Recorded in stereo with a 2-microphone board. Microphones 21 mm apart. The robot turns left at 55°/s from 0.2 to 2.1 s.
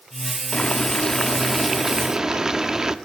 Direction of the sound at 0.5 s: 55° left.